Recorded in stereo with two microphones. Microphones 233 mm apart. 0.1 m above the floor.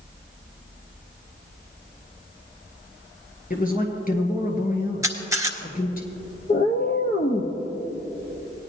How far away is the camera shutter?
About 1.2 m.